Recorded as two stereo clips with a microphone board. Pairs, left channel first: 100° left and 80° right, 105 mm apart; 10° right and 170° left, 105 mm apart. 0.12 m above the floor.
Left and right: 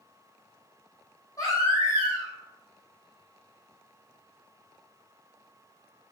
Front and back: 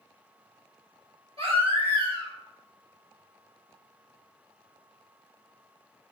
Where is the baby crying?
155° left, 1.9 m.